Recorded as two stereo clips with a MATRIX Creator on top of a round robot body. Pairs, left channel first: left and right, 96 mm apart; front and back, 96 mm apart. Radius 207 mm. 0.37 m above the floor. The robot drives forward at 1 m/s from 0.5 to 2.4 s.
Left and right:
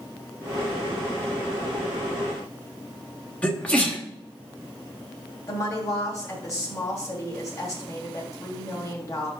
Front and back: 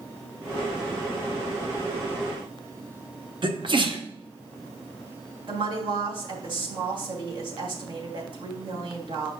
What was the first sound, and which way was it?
A sneeze, 165° left.